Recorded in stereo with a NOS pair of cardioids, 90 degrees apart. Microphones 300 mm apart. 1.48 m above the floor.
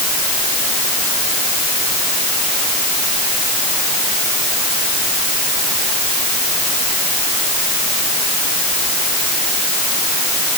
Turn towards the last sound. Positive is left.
No sound to turn to.